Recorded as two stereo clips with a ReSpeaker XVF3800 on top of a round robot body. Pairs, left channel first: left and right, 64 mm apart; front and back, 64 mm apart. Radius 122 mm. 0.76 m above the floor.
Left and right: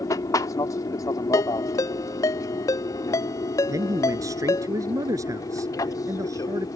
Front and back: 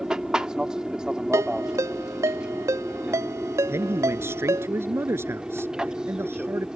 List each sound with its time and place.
0.0 s an aircraft: 105° left
1.3 s a ringtone: 130° left
3.7 s a man speaking: 130° right